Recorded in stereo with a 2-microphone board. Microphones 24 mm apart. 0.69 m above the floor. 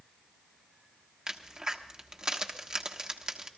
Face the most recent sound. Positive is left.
turn(degrees=-25)  # may be behind; listen again after turning